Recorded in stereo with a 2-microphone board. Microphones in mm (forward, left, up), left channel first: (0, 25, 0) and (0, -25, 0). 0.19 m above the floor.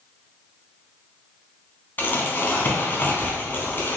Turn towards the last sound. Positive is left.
turn(degrees=40)  # may be behind; listen again after turning